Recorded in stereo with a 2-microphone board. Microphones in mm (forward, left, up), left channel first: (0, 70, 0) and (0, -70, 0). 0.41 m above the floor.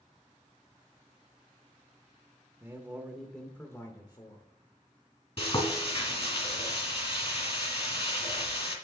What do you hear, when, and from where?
2.6 s a man speaking: 20° right (ahead or behind), 0.8 m; by 4.5 s 35° left (ahead or behind), 1.0 m
5.4 s frying: 40° left (ahead or behind), 2 m